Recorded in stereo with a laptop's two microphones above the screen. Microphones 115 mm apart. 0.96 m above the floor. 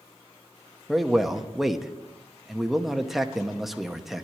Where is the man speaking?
Centre (ahead or behind), 0.8 m.